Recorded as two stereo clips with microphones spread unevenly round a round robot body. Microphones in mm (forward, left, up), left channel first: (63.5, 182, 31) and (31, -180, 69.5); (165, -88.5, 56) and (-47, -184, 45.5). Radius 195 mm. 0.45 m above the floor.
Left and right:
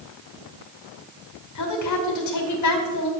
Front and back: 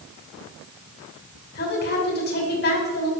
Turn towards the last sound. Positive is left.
turn(degrees=70)